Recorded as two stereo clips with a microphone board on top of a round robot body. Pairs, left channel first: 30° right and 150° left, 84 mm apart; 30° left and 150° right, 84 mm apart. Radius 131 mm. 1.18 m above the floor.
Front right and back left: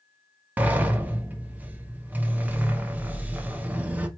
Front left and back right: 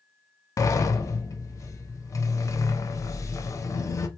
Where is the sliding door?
80° left, 0.7 m.